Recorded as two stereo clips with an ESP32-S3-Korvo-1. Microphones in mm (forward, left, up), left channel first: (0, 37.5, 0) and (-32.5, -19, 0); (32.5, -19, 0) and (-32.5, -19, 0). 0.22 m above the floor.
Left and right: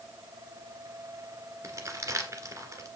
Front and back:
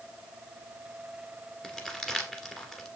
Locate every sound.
1.6 s crumpling: 80° right, 1.7 m